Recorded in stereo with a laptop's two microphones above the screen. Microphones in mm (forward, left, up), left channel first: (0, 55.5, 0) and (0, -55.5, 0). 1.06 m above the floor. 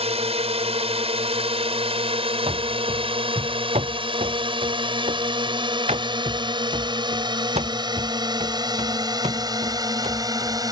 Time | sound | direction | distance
0.0 | a drone | 70° right (ahead or behind) | ?
2.5 | running footsteps | 70° right (ahead or behind) | ?